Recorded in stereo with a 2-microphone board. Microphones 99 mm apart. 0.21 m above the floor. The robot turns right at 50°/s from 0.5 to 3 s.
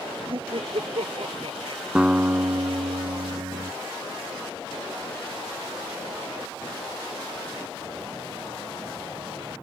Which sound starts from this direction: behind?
A guitar, at 1.9 s.